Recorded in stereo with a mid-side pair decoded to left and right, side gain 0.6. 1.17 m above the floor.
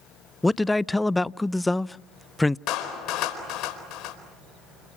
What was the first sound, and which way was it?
A man speaking, 10° left.